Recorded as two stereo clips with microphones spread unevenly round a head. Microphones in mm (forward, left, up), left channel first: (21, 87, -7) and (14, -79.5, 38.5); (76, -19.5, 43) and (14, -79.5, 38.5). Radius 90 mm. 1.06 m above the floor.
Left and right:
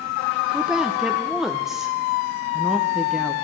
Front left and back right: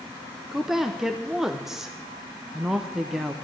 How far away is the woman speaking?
About 0.7 m.